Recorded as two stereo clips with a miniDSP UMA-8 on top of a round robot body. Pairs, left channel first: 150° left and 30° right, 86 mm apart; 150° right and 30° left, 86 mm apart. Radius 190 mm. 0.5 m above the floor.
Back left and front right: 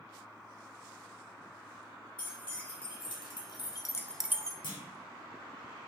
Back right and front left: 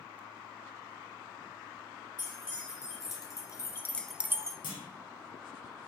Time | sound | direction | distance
2.2 | keys jangling | 165° left | 1.9 m
4.6 | a clunk | straight behind | 0.6 m